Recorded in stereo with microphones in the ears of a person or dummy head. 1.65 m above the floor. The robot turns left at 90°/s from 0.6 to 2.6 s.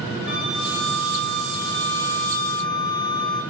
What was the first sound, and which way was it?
A flute, 150° right.